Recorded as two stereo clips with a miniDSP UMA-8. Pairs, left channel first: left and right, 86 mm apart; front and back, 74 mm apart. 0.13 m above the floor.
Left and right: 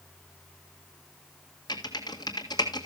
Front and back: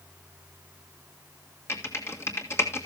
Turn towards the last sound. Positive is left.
turn(degrees=55)